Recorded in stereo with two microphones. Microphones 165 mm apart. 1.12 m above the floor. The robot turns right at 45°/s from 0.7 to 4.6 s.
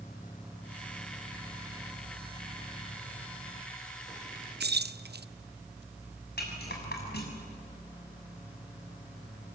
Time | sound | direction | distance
4.6 | keys jangling | 75° right (ahead or behind) | 0.6 m
6.4 | a rattle | 75° left (ahead or behind) | 6.5 m